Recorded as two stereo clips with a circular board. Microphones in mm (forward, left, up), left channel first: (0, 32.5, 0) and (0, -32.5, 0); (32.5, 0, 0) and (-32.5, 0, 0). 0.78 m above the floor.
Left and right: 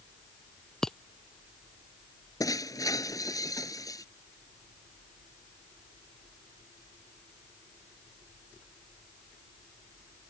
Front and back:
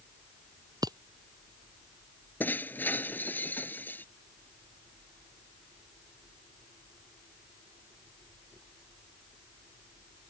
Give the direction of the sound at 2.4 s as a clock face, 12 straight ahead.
10 o'clock.